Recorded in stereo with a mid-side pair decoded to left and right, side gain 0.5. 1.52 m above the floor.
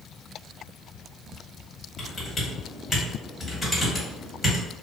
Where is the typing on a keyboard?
20° left, 1.6 m.